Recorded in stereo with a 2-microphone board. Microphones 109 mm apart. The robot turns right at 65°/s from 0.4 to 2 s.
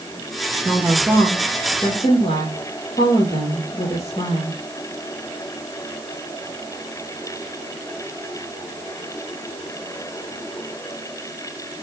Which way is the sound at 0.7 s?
15° right.